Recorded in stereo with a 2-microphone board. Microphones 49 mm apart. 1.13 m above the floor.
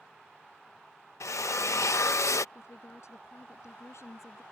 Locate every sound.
1.2 s a drill: 90° left
2.5 s a woman speaking: 75° left (ahead or behind)